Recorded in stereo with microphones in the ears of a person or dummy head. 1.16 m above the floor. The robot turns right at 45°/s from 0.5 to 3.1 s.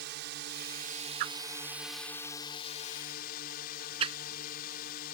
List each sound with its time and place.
0.0 s a drone: 65° right; by 5.2 s 55° left
1.2 s a whoosh: 50° right (ahead or behind); by 4.2 s 30° right (ahead or behind)